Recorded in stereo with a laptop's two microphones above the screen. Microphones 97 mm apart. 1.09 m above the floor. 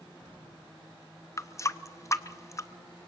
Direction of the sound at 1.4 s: 35° left (ahead or behind).